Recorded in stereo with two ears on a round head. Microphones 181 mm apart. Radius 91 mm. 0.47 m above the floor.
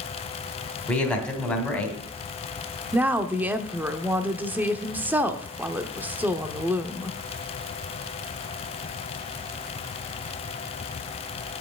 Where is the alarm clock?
I don't hear an alarm clock.